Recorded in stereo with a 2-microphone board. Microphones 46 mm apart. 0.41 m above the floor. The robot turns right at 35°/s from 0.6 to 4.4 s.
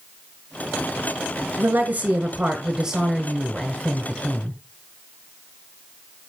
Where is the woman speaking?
60° right, 1.6 m; by 4.6 s 40° left, 1.6 m.